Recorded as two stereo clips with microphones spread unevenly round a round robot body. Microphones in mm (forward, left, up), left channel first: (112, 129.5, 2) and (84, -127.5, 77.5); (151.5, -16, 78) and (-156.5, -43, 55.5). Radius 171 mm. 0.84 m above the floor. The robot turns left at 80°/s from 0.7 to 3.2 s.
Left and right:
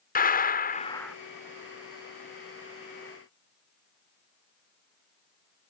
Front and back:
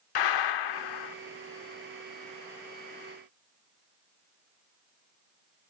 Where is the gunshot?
25° left; by 1.1 s 10° right.